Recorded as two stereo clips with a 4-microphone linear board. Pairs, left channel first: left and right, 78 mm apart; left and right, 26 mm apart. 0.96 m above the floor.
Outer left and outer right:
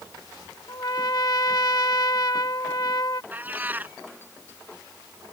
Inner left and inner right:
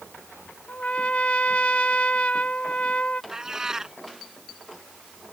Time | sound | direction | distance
0.7 | a trumpet | 60° left (ahead or behind) | ?
3.3 | a cat meowing | 25° right (ahead or behind) | ?